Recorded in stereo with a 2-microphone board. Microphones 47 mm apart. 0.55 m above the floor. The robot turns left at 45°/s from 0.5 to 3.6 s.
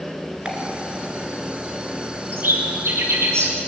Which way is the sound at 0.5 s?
25° right (ahead or behind).